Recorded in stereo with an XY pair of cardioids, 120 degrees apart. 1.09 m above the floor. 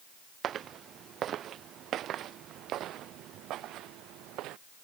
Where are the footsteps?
50° right; by 4.6 s 75° right.